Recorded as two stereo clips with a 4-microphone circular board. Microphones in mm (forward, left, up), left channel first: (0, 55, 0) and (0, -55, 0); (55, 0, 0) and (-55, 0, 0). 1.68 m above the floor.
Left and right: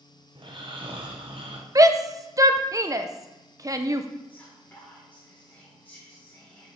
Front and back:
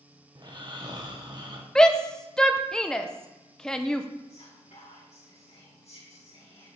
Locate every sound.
0.3 s snoring: 130° right, 1.3 m
1.8 s a shout: 75° right, 0.6 m
4.3 s whispering: 15° left, 2 m